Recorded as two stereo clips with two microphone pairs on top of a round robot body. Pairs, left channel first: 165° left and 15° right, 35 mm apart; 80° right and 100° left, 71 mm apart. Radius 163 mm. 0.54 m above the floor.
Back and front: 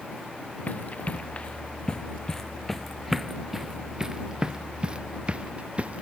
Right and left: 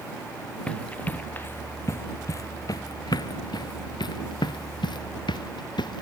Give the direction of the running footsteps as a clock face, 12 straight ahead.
5 o'clock.